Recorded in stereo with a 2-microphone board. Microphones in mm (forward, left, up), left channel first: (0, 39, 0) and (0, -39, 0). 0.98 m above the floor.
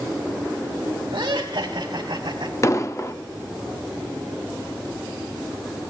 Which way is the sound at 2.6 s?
35° left (ahead or behind).